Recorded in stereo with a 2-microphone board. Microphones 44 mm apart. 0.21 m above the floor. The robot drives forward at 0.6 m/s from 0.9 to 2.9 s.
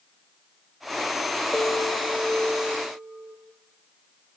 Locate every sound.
1.5 s a bell: 25° left (ahead or behind), 4.5 m; by 3.3 s 30° left (ahead or behind), 3.5 m